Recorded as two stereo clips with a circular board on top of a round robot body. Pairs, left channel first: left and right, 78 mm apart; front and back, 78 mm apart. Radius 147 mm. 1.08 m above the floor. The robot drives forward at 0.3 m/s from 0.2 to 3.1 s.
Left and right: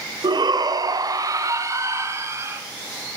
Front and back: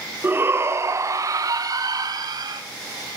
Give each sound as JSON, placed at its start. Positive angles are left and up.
{"t": 0.2, "sound": "a shout", "azimuth_deg": -115, "distance_m": 0.7}